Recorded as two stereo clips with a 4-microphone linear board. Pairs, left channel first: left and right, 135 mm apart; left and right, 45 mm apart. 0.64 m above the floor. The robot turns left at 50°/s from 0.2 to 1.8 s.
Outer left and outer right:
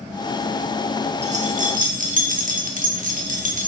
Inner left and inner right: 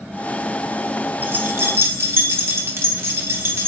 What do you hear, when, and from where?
1.2 s keys jangling: 50° right (ahead or behind), 1.0 m; by 3.7 s 65° right (ahead or behind), 1.0 m